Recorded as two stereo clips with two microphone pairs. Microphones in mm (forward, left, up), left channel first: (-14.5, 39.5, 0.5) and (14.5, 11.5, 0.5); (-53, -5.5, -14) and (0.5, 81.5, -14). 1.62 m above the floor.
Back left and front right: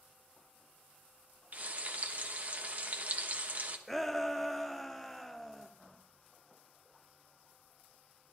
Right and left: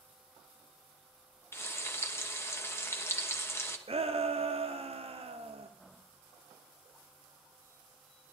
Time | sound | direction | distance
1.5 | frying | 70° right | 1.0 m
3.9 | a shout | 55° left | 0.6 m